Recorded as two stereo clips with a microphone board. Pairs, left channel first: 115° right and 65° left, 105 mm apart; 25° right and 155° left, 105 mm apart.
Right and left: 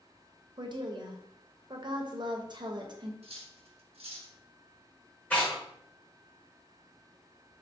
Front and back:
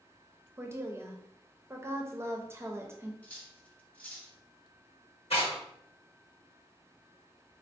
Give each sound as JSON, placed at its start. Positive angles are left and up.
{"t": 0.6, "sound": "a woman speaking", "azimuth_deg": 100, "distance_m": 0.6}
{"t": 3.2, "sound": "cutlery clinking", "azimuth_deg": 55, "distance_m": 0.7}
{"t": 5.3, "sound": "tearing paper", "azimuth_deg": -40, "distance_m": 1.6}